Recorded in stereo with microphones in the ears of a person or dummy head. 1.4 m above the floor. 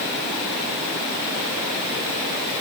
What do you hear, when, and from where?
Only background noise.